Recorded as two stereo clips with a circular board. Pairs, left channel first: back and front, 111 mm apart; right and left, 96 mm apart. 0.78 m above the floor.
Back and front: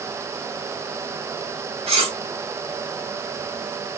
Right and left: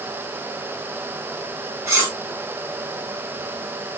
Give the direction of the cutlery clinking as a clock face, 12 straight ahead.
11 o'clock.